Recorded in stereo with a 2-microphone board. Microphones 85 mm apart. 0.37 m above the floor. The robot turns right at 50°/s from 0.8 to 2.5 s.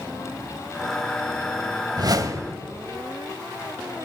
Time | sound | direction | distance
2.0 | a whoosh | 55° right (ahead or behind) | 0.9 m